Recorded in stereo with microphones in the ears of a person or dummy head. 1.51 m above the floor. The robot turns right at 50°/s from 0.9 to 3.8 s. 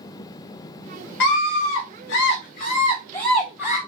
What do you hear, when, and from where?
1.2 s a scream: 55° left, 0.5 m; by 3.8 s straight behind, 0.5 m